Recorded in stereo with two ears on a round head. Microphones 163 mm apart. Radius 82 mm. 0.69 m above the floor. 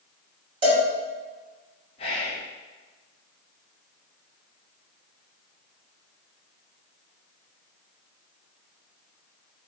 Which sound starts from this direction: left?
Whispering, at 2.0 s.